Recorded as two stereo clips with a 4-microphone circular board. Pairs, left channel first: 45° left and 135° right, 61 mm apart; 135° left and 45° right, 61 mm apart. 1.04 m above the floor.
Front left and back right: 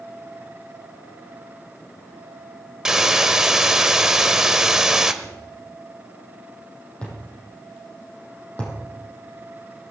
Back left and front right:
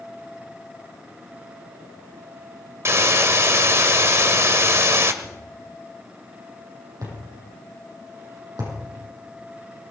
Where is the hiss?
55° right, 1.0 m.